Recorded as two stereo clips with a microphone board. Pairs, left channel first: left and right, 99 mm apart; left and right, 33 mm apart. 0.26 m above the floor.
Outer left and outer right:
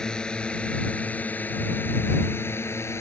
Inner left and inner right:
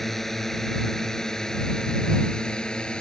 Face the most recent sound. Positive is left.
turn(degrees=30)  # may be behind; listen again after turning